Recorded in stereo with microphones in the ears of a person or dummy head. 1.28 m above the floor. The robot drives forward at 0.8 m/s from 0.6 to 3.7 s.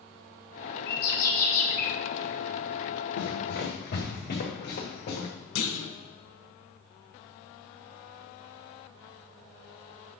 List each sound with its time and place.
0.9 s a bird: 60° left (ahead or behind), 1.3 m; by 1.9 s 40° left (ahead or behind), 1.6 m
3.2 s running footsteps: 65° left (ahead or behind), 3.5 m; by 5.3 s 50° left (ahead or behind), 4.5 m
5.5 s a clunk: 65° left (ahead or behind), 1.4 m